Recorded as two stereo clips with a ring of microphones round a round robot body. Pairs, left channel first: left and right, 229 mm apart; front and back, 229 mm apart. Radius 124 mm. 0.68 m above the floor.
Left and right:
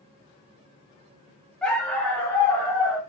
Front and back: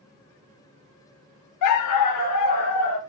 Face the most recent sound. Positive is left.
turn(degrees=5)